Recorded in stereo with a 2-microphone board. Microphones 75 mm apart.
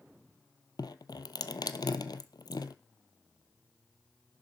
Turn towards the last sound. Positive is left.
turn(degrees=75)  # may be behind; listen again after turning